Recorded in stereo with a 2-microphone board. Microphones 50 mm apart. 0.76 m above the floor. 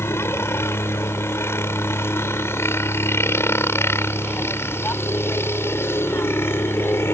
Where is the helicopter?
60° left (ahead or behind); by 7.2 s 55° left (ahead or behind).